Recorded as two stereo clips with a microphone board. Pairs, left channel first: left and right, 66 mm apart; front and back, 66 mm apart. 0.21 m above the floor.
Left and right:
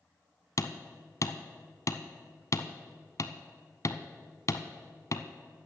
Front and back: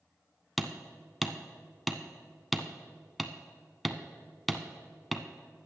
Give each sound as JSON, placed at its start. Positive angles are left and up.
{"t": 0.6, "sound": "hammering", "azimuth_deg": 90, "distance_m": 0.7}